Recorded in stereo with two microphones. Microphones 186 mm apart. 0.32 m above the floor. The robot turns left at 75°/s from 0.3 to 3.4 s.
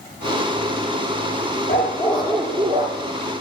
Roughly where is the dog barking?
Ahead left.